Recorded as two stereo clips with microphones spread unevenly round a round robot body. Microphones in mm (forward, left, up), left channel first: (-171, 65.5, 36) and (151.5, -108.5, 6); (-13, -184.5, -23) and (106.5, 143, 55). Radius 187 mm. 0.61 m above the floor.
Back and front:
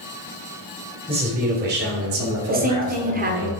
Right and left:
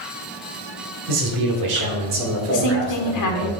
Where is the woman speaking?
90° right, 1.4 m.